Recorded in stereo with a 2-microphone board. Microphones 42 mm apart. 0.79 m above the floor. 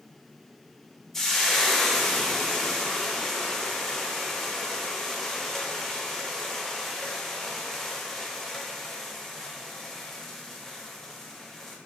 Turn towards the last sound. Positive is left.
turn(degrees=10)  # may be behind; listen again after turning